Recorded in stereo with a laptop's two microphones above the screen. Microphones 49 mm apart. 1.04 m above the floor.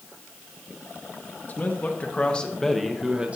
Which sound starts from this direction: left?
A man speaking, at 1.5 s.